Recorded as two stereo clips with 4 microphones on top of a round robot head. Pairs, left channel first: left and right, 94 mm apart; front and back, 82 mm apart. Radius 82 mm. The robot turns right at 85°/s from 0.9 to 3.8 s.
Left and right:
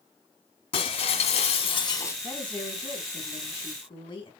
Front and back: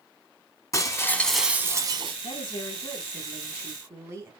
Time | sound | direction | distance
0.7 | breaking glass | 50° left | 1.8 m
2.2 | a woman speaking | 10° right | 4 m